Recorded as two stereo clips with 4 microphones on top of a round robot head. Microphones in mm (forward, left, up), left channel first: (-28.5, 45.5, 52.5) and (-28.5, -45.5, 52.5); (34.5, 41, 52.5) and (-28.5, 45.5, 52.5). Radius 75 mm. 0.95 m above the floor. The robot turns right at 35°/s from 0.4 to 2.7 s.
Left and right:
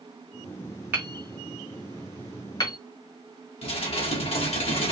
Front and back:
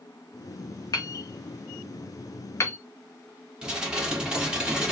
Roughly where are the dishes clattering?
Left.